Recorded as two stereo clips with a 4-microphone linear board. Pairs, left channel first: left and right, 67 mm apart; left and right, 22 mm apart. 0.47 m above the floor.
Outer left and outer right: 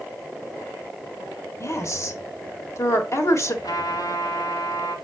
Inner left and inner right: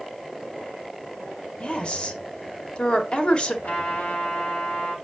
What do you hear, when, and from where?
1.6 s a woman speaking: 45° left (ahead or behind), 1.7 m
3.6 s a trumpet: 65° left (ahead or behind), 3 m